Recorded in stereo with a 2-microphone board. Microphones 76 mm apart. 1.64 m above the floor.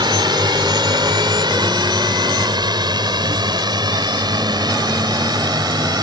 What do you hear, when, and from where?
0.0 s a drone: 75° right (ahead or behind); by 6.0 s 65° right (ahead or behind)